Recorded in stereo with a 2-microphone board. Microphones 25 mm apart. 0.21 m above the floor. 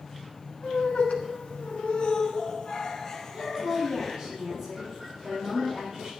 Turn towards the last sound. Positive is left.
turn(degrees=-25)  # may be behind; listen again after turning